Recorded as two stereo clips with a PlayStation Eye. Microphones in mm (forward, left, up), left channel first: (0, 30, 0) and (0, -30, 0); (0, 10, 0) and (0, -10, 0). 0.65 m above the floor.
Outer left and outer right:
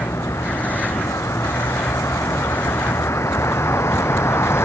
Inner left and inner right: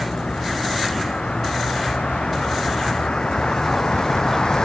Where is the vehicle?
55° left (ahead or behind); by 4.6 s 45° left (ahead or behind).